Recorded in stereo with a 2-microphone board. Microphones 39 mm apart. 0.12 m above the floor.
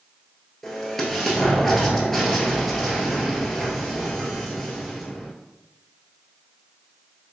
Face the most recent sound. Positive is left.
turn(degrees=5)  # may be behind; listen again after turning